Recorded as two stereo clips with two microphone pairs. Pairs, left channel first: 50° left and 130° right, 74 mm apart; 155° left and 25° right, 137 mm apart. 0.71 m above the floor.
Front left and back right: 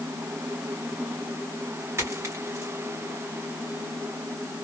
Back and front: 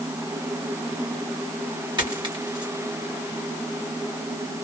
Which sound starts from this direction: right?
A dropped coin, at 2.0 s.